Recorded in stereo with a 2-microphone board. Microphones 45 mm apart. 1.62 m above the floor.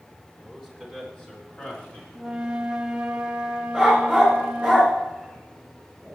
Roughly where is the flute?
Centre.